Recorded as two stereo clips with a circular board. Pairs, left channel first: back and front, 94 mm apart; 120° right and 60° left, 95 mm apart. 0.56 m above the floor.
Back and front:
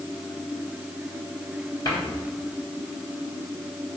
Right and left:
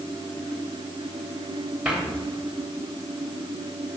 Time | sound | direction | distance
1.9 | a cupboard door | 140° left | 3.5 m